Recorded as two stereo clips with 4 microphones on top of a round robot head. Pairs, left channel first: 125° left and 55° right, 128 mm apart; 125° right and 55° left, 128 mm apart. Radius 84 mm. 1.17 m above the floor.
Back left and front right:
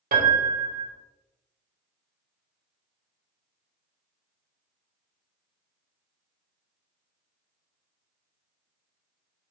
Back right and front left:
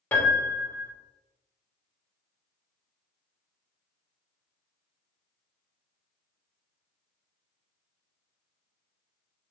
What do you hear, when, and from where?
0.1 s a piano: 50° right, 1.4 m